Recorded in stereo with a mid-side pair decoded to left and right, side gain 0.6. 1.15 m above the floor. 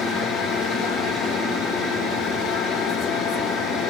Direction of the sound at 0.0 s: 65° left.